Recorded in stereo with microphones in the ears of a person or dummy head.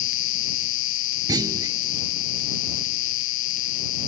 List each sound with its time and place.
0.0 s an insect: 70° left (ahead or behind)
1.3 s a clunk: 20° right (ahead or behind)